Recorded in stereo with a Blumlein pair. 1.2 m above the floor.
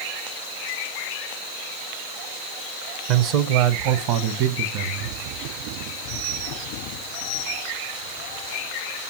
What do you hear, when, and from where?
3.1 s a man speaking: 45° right, 0.7 m; by 5.2 s 50° right, 1.8 m